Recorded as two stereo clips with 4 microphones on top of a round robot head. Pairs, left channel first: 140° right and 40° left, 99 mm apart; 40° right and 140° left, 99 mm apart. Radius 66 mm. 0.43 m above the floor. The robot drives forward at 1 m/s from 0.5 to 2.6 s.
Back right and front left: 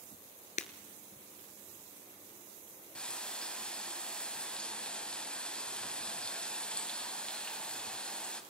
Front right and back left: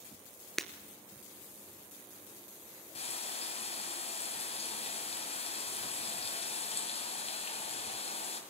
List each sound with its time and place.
0.6 s breaking glass: 125° right, 1.0 m; by 0.7 s 130° right, 1.1 m
3.0 s frying: 60° right, 2.5 m